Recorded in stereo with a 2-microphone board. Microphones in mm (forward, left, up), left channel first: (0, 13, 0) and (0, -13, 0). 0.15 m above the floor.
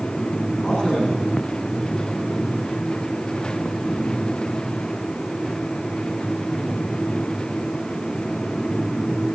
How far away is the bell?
No bell in this recording.